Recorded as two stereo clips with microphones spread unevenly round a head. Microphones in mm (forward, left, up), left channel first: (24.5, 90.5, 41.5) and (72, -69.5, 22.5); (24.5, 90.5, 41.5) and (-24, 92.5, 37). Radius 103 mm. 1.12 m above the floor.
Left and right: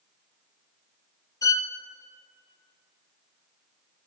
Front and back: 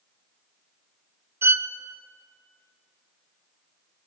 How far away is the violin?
About 1.1 m.